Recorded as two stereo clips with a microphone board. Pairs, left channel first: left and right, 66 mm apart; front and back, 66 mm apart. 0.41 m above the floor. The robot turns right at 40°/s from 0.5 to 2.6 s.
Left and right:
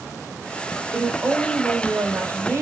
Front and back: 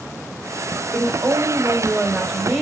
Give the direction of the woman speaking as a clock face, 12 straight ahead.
6 o'clock.